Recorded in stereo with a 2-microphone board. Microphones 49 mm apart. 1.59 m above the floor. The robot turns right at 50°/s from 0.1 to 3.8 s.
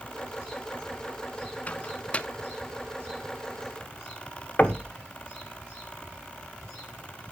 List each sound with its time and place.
1.7 s a microwave: 30° left (ahead or behind), 0.6 m; by 2.3 s 20° left (ahead or behind), 0.6 m
4.6 s knocking: 35° left (ahead or behind), 1.0 m